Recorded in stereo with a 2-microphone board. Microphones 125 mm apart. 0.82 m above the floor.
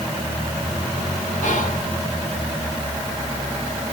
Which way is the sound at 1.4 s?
75° left (ahead or behind).